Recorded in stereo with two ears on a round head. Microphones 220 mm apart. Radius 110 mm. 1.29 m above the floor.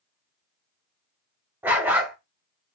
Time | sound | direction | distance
1.6 | a dog barking | 10° right (ahead or behind) | 1.0 m